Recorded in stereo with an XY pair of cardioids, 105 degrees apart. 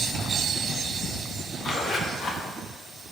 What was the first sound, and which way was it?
A zipper, 50° left.